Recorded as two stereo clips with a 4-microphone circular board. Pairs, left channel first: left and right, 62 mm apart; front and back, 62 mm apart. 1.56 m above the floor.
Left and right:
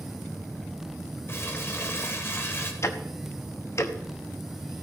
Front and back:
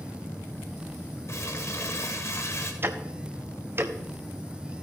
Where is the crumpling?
40° left, 1.7 m.